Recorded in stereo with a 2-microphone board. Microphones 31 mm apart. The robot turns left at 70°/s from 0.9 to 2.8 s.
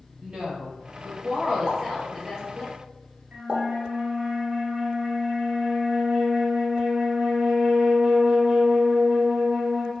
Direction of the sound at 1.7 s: 20° right (ahead or behind).